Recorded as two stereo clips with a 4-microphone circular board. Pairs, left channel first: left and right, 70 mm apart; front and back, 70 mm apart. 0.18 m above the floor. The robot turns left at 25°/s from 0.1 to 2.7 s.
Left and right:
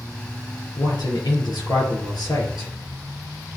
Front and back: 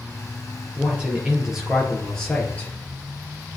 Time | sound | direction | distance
0.8 | a man speaking | 115° left | 3 m